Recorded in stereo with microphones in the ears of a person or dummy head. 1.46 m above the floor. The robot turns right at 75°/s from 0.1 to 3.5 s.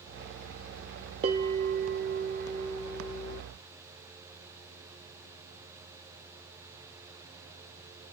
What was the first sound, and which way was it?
A bell, 140° right.